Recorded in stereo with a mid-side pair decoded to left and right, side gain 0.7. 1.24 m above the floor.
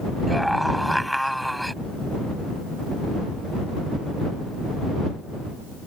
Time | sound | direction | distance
0.3 | a scream | straight ahead | ?